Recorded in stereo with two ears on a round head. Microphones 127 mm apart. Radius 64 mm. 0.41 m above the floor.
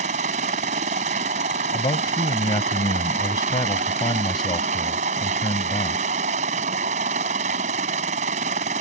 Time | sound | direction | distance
0.0 | a helicopter | 50° right (ahead or behind) | ?
1.7 | a man speaking | 30° left (ahead or behind) | ?